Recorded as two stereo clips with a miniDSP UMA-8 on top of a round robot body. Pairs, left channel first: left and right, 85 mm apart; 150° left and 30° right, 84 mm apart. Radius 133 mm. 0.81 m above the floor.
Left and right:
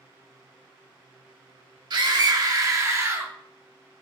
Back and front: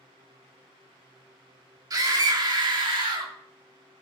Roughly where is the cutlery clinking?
No cutlery clinking in this recording.